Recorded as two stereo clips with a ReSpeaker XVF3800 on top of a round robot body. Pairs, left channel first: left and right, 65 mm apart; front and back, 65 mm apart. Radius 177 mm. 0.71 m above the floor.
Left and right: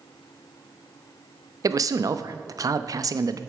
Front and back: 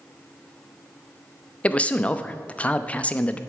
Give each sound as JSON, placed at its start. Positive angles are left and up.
{"t": 1.6, "sound": "a man speaking", "azimuth_deg": -70, "distance_m": 0.9}